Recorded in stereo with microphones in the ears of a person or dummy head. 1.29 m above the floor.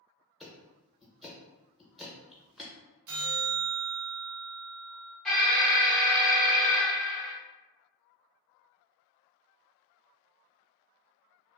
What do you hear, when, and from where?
0.4 s ticking: centre (ahead or behind), 0.7 m
3.1 s a bell: 60° right (ahead or behind), 0.9 m
5.2 s an alarm: centre (ahead or behind), 0.5 m